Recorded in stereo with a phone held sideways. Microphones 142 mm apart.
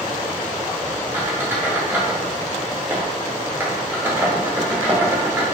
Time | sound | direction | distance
1.1 | a squeak | 15° right (ahead or behind) | 0.8 m